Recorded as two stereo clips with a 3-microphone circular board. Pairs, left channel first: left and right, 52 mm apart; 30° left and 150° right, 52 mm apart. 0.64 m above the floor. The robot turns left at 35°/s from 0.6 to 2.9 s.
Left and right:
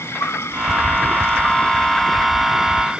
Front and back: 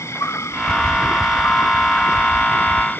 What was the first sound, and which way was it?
An insect, 60° left.